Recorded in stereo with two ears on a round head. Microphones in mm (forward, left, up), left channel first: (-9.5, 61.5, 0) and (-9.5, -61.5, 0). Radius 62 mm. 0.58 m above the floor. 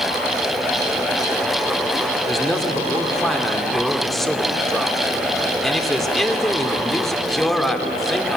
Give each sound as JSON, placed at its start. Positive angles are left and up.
{"t": 2.3, "sound": "a man speaking", "side_deg": 5, "distance_m": 1.8}